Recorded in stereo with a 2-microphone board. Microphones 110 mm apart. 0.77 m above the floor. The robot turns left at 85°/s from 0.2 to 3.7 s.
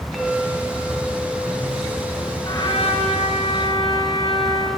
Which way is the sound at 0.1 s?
5° right.